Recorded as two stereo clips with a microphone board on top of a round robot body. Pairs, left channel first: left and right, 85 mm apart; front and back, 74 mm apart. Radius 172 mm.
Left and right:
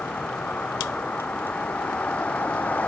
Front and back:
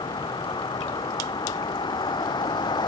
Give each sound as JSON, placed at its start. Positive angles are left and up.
{"t": 0.0, "sound": "a vehicle", "azimuth_deg": 15}